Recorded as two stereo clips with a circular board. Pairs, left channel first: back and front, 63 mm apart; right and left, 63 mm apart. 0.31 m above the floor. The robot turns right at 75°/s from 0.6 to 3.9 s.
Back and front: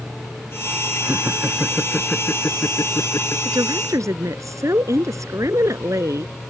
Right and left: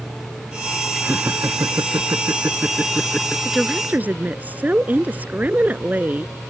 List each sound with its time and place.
1.0 s laughter: 30° left; by 3.4 s 155° right
3.5 s a woman speaking: 5° right; by 6.3 s 25° left